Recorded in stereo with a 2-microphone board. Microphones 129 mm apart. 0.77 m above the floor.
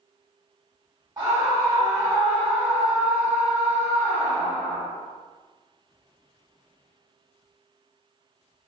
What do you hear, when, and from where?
1.2 s a scream: 25° right (ahead or behind), 1.2 m; by 4.8 s 15° left (ahead or behind), 1.7 m